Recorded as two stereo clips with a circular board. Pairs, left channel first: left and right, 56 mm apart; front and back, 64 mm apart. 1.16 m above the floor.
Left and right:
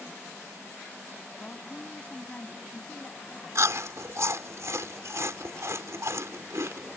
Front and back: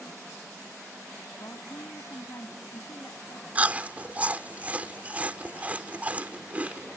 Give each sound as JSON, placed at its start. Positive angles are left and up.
{"t": 1.4, "sound": "a woman speaking", "azimuth_deg": 25}
{"t": 3.5, "sound": "chewing", "azimuth_deg": -115}